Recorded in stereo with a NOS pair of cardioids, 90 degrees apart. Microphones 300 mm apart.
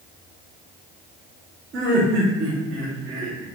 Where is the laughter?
40° right, 1.1 m.